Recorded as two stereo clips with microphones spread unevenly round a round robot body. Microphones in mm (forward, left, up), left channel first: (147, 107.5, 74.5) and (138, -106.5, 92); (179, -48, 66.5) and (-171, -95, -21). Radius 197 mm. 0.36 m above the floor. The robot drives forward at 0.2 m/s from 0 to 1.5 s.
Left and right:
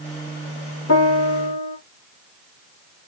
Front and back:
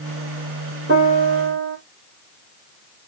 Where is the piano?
120° left, 2 m.